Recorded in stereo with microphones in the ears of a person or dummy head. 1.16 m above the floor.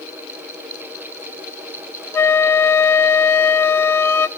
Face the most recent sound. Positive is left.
turn(degrees=15)  # may be behind; listen again after turning